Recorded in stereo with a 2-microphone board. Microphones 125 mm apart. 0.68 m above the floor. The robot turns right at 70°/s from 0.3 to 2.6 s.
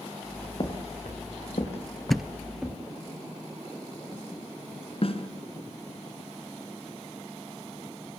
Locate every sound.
0.6 s footsteps: 40° left (ahead or behind), 5.5 m; by 2.7 s centre (ahead or behind), 6.5 m
2.1 s a thud: centre (ahead or behind), 0.8 m; by 2.3 s 5° right (ahead or behind), 0.8 m
5.0 s a snare drum: 50° left (ahead or behind), 3.5 m